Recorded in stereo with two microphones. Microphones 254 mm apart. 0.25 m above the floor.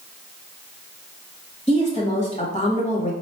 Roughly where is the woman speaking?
Left.